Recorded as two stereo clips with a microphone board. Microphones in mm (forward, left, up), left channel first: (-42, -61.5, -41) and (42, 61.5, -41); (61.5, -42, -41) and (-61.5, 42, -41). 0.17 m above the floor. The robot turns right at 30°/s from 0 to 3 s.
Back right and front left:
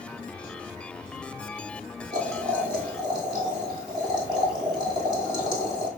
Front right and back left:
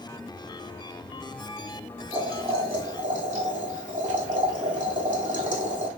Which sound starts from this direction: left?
Boiling, at 2.1 s.